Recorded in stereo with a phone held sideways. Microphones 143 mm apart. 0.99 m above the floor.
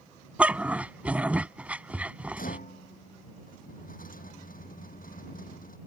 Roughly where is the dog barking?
Centre.